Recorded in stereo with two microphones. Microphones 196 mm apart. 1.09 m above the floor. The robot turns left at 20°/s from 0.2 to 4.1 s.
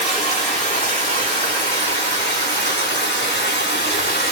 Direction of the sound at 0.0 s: 145° left.